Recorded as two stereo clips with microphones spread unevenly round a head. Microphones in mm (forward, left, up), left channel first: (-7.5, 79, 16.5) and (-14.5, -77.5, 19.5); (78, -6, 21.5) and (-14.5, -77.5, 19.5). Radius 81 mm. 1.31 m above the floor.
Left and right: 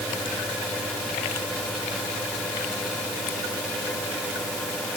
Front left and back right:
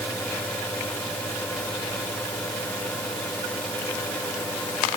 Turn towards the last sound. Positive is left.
No sound to turn to.